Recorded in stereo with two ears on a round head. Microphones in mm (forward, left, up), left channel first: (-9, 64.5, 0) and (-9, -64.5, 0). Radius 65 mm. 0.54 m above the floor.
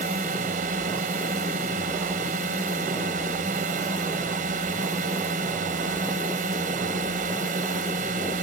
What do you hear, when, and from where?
0.0 s a drone: 55° right (ahead or behind)